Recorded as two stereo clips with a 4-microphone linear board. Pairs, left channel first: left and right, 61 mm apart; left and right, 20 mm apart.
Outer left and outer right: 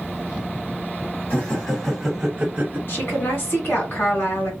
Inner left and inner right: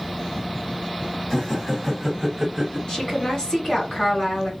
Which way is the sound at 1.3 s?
30° left (ahead or behind).